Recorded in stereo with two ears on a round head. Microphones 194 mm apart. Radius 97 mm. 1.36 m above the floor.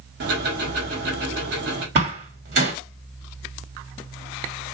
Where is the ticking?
50° right (ahead or behind), 1.5 m.